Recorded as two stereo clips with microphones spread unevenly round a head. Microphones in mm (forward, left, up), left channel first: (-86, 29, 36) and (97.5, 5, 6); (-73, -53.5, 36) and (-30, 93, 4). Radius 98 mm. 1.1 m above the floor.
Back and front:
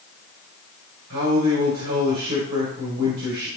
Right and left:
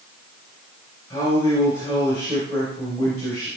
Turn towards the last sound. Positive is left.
turn(degrees=-25)